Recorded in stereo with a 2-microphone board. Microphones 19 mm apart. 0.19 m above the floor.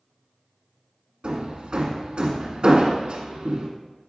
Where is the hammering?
50° right (ahead or behind), 1.4 m.